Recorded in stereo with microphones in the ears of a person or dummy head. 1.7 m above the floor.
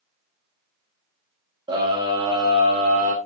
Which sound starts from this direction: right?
A scream, at 1.7 s.